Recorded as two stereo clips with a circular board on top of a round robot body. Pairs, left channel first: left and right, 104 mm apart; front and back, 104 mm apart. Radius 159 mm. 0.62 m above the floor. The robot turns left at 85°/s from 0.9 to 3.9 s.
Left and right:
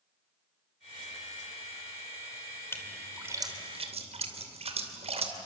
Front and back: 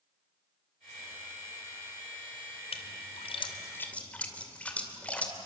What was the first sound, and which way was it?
A splash, 25° left.